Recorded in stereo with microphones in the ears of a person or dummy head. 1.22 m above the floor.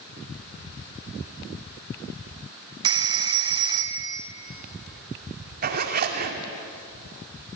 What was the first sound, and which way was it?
A phone ringing, 25° right (ahead or behind).